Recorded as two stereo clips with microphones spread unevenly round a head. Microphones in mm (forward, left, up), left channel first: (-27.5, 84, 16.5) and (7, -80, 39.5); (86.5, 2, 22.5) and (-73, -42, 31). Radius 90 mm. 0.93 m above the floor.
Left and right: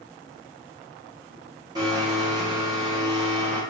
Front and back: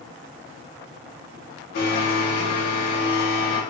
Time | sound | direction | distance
1.8 | a blender | 15° right | 0.7 m